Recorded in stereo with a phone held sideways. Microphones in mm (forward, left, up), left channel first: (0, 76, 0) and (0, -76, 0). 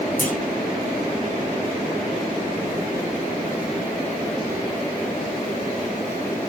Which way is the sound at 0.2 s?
70° left (ahead or behind).